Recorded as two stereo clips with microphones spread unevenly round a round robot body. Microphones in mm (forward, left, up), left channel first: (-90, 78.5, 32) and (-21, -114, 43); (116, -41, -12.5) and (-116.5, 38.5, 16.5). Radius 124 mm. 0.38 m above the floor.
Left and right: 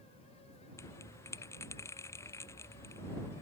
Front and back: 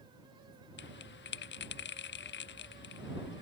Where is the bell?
30° left.